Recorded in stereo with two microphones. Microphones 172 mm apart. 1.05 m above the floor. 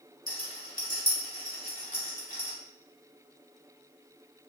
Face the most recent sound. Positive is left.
turn(degrees=55)  # may be behind; listen again after turning